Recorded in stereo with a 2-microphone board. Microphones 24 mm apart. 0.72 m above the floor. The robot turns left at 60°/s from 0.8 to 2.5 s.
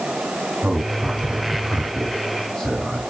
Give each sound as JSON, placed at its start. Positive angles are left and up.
{"t": 0.6, "sound": "a man speaking", "side_deg": -70, "distance_m": 5.0}